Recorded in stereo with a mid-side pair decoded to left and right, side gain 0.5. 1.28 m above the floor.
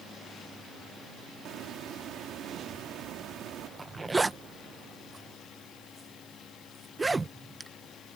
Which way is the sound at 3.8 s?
20° right.